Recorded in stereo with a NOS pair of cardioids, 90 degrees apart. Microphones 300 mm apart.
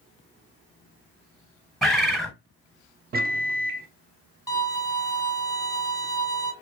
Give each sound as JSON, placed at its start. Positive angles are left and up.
{"t": 1.8, "sound": "a bird", "azimuth_deg": 0, "distance_m": 0.8}
{"t": 3.1, "sound": "a microwave", "azimuth_deg": -30, "distance_m": 0.5}
{"t": 4.5, "sound": "a violin", "azimuth_deg": 10, "distance_m": 0.9}